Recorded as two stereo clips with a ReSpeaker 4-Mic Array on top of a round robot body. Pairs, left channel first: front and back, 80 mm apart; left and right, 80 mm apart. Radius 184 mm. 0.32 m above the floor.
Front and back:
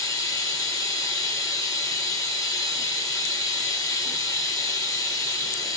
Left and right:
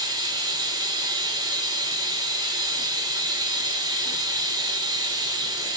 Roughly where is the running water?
Ahead right.